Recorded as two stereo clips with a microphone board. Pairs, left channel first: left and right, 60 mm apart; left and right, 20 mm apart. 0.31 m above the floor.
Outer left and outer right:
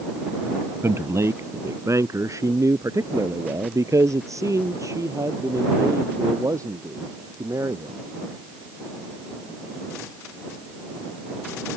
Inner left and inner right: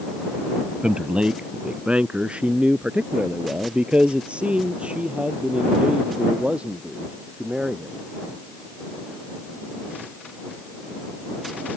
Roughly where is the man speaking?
Right.